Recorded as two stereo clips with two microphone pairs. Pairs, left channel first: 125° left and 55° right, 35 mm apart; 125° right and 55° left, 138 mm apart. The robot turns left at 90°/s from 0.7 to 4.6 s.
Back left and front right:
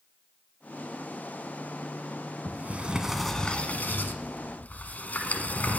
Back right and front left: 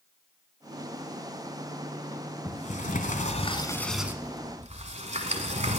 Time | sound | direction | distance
2.5 | a sliding door | 80° right | 1.3 m